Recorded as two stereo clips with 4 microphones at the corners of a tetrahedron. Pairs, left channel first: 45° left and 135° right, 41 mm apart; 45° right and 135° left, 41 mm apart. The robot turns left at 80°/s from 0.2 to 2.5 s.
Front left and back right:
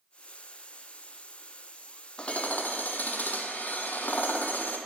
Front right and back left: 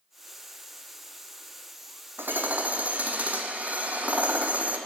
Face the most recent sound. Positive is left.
turn(degrees=85)